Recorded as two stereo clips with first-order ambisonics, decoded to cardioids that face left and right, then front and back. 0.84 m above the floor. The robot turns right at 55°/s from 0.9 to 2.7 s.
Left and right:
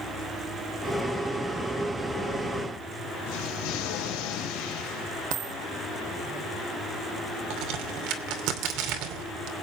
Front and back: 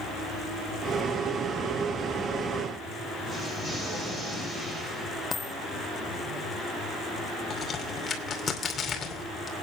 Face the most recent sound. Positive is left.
turn(degrees=-65)